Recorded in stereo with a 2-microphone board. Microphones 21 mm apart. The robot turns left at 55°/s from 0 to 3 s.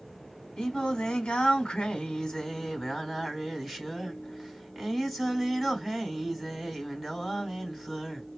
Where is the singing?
120° left, 3 m; by 8.3 s 15° right, 3 m.